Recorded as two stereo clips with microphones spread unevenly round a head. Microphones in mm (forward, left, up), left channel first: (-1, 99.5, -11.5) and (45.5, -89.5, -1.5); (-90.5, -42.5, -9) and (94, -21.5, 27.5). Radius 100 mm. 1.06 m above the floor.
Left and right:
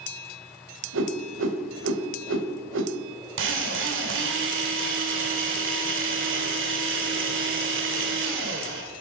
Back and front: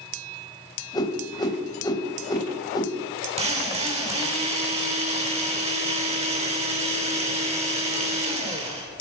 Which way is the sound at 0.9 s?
100° right.